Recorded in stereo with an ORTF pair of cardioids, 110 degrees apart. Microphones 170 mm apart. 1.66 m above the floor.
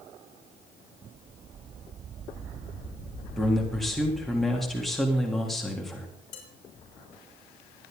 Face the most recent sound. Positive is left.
turn(degrees=45)